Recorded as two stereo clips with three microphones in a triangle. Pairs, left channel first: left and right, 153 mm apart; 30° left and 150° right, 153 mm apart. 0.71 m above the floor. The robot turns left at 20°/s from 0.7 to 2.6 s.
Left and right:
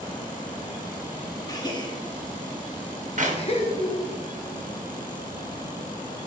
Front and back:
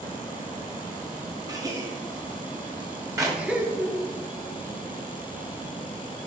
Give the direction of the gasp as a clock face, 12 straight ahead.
7 o'clock.